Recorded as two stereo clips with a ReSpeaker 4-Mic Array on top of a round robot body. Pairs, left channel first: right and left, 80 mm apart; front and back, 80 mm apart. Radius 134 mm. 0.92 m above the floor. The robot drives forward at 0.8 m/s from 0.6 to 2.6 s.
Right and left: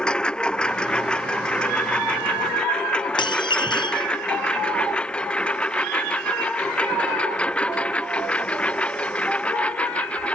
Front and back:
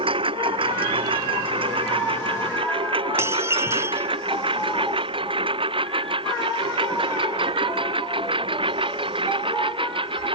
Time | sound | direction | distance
0.0 | a lawn mower | 170° right | ?
3.2 | dishes clattering | 120° right | ?